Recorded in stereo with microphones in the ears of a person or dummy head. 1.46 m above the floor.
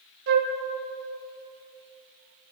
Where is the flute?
60° right (ahead or behind), 1.3 m.